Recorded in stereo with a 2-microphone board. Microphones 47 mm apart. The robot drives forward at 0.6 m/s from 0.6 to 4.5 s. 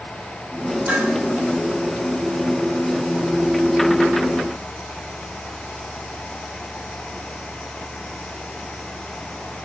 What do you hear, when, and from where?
0.9 s dishes clattering: 35° right (ahead or behind), 4 m